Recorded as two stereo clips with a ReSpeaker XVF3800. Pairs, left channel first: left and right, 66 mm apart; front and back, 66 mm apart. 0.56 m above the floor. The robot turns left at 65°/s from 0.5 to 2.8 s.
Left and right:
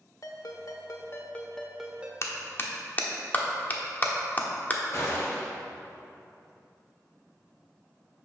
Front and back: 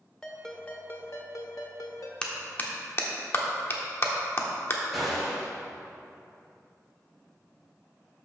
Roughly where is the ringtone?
Left.